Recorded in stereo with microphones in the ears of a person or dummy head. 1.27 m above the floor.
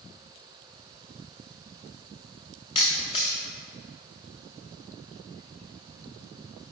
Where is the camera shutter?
25° left (ahead or behind), 0.7 m.